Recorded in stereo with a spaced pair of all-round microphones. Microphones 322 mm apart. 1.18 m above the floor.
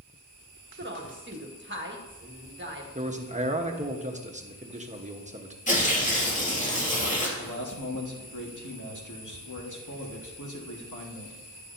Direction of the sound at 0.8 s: 35° right (ahead or behind).